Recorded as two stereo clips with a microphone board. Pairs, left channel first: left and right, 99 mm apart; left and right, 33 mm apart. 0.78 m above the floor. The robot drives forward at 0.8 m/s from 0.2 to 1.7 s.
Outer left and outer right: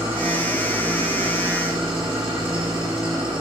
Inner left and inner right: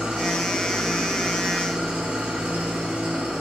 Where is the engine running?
50° right (ahead or behind), 8.5 m; by 3.4 s 55° right (ahead or behind), 7.5 m.